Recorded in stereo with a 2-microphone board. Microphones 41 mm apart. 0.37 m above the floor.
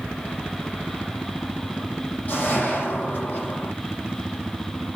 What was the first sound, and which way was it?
A whoosh, 40° left (ahead or behind).